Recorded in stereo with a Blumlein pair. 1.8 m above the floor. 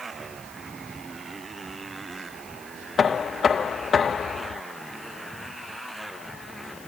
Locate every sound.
0.0 s a motorcycle: 10° right; by 6.9 s straight ahead
3.0 s knocking: 20° left